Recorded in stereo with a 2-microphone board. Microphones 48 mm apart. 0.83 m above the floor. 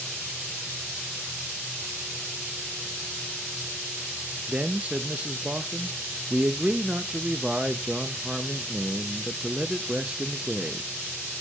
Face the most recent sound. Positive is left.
turn(degrees=-25)  # may be behind; listen again after turning